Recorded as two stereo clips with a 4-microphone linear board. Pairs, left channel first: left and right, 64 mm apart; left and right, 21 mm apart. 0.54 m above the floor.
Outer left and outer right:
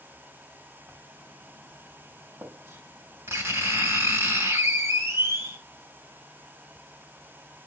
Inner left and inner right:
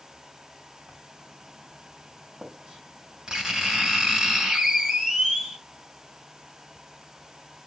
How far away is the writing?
About 3 m.